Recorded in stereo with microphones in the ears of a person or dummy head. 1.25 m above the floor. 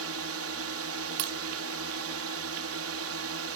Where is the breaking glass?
55° right (ahead or behind).